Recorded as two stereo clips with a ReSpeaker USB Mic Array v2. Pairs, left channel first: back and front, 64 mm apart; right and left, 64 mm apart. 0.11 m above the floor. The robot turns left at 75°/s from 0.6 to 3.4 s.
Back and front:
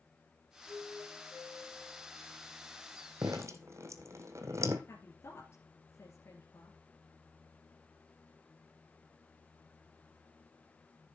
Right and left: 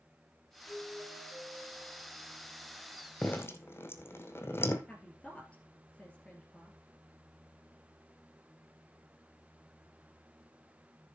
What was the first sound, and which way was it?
A doorbell, 155° left.